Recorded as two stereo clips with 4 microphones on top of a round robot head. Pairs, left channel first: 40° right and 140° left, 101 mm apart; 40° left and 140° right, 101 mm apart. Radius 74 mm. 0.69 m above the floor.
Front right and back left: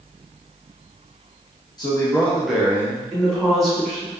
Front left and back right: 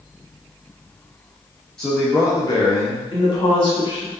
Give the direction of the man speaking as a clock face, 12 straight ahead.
1 o'clock.